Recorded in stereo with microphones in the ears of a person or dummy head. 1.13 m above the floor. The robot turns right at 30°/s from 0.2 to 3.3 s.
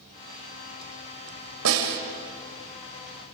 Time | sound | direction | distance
1.6 | a snare drum | 80° right | 3 m